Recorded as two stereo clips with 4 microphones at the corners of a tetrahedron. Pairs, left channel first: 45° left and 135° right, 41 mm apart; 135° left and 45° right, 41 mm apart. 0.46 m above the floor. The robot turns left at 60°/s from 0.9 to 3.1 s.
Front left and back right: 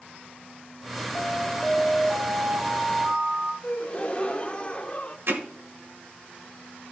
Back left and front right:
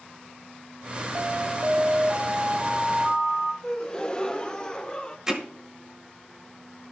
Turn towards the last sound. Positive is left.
turn(degrees=-120)